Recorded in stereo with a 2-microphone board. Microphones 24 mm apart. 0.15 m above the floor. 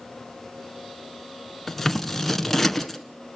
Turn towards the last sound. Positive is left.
turn(degrees=10)  # may be behind; listen again after turning